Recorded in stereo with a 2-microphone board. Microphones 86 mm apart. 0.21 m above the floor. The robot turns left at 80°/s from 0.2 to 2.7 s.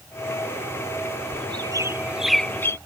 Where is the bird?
70° right (ahead or behind); by 2.8 s 30° left (ahead or behind).